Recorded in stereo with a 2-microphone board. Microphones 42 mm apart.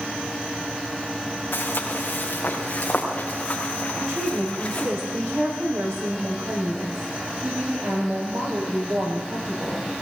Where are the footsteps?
45° left (ahead or behind), 4 m; by 4.9 s 20° left (ahead or behind), 5.5 m.